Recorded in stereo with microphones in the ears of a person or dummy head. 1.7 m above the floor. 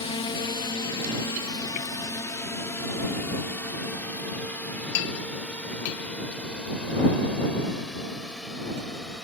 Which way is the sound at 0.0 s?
30° left (ahead or behind).